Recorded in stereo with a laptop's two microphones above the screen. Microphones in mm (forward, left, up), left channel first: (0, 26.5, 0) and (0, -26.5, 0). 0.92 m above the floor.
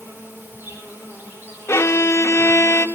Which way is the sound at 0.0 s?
40° right (ahead or behind).